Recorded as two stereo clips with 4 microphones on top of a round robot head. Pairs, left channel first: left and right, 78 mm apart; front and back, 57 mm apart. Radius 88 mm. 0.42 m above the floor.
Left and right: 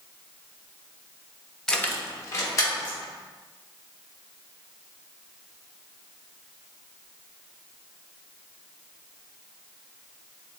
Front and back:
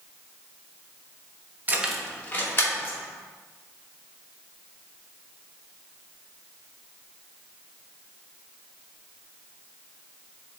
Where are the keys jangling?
170° left, 0.6 m; by 3.0 s 40° left, 1.8 m.